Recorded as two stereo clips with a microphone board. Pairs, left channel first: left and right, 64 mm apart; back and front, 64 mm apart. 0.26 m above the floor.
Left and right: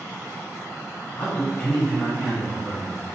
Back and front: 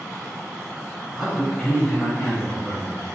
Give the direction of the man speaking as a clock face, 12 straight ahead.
10 o'clock.